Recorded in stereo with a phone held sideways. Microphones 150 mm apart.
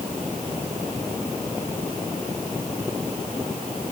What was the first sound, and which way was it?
Only background noise.